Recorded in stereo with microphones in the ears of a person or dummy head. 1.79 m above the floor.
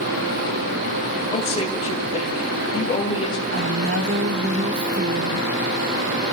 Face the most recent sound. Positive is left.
turn(degrees=-65)  # may be behind; listen again after turning